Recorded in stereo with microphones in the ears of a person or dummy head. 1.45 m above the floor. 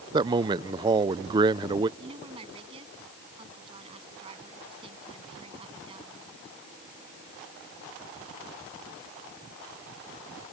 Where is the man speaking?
25° right (ahead or behind).